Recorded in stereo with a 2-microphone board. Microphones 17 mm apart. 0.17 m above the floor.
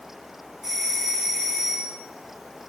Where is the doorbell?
10° right (ahead or behind), 2 m.